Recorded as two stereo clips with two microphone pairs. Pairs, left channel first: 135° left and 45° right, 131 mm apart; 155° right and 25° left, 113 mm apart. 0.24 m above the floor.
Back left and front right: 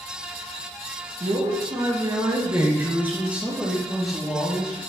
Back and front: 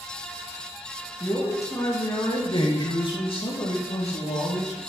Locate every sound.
1.2 s a man speaking: 90° right, 3.5 m; by 4.8 s 145° right, 4.5 m